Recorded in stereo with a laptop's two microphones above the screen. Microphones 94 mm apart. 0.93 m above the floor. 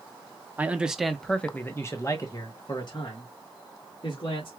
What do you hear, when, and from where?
0.6 s a man speaking: 15° right (ahead or behind), 0.9 m; by 4.5 s 65° left (ahead or behind), 2 m